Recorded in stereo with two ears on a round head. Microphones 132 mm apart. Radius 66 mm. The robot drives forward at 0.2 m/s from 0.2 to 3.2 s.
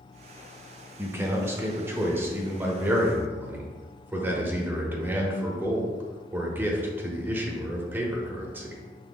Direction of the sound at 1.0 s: 15° right (ahead or behind).